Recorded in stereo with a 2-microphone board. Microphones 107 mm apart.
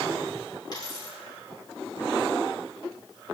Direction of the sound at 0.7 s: 40° left (ahead or behind).